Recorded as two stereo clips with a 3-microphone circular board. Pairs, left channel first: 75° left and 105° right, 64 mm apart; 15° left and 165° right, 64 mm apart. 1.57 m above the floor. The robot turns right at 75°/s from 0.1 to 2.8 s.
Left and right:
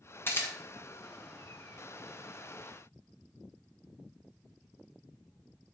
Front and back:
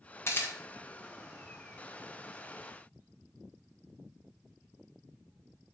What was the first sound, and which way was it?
A camera shutter, 40° left.